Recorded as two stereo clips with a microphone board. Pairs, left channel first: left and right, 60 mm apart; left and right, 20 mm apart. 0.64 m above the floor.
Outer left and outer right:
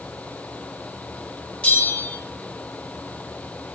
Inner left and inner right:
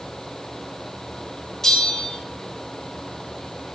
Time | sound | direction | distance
1.6 | a bell | 20° left (ahead or behind) | 0.6 m